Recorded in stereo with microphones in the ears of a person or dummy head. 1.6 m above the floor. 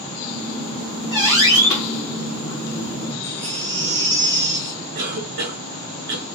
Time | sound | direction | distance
0.3 | a squeak | 30° left (ahead or behind) | 2.5 m
3.2 | a baby crying | 30° left (ahead or behind) | 3 m
5.0 | a cough | 45° right (ahead or behind) | 1.4 m